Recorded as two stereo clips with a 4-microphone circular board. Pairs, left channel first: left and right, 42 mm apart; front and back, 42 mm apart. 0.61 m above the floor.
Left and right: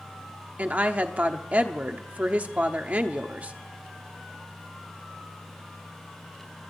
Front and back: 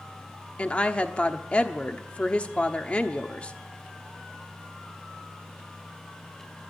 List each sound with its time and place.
0.6 s a woman speaking: 50° right, 1.1 m